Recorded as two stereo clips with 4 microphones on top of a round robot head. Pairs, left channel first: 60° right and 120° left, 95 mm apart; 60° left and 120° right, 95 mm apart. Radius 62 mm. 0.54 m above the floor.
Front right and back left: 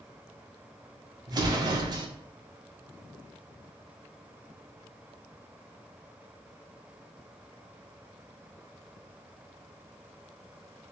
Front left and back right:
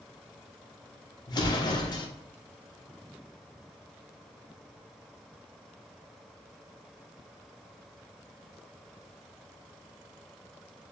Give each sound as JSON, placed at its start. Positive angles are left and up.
{"t": 1.3, "sound": "an explosion", "azimuth_deg": 90, "distance_m": 1.0}